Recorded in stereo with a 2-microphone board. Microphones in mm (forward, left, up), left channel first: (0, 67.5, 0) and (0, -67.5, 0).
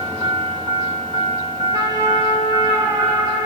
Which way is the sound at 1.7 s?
30° right (ahead or behind).